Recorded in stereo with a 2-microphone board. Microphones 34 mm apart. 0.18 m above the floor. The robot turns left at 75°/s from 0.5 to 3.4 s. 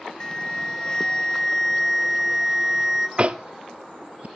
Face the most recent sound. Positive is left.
turn(degrees=-50)  # may be behind; listen again after turning